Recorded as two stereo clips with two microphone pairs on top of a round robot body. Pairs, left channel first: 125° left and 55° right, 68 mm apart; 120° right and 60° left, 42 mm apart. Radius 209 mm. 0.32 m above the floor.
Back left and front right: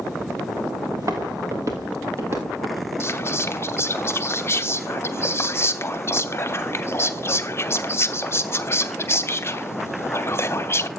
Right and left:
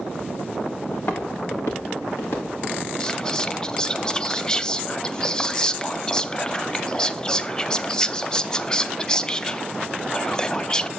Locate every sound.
0.9 s footsteps: 95° right, 3 m; by 2.9 s 110° right, 4 m
3.0 s whispering: 170° left, 1.1 m